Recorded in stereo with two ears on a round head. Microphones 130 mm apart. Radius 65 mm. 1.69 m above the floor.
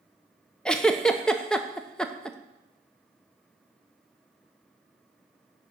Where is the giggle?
5° left (ahead or behind), 0.6 m.